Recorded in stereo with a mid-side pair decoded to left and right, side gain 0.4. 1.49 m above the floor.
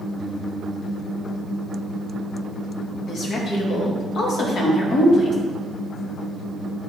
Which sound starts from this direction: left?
A woman speaking, at 3.1 s.